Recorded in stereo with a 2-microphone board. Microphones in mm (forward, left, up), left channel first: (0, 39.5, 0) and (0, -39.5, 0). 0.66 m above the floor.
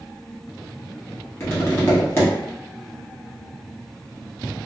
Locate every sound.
1.4 s tapping: 30° left (ahead or behind), 1.0 m